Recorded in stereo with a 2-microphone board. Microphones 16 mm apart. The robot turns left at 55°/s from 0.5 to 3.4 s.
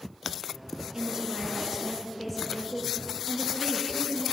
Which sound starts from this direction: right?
A woman speaking, at 0.9 s.